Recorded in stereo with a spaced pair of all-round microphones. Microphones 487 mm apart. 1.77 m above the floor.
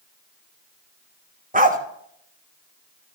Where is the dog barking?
15° right (ahead or behind), 1.1 m.